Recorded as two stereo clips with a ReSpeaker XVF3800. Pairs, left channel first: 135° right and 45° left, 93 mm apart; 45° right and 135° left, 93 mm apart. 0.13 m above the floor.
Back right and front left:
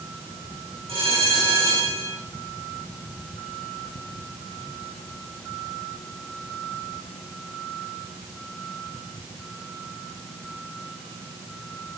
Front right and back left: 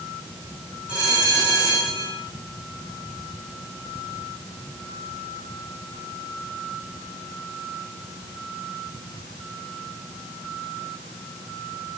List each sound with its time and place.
0.9 s a bell: 60° left, 9.5 m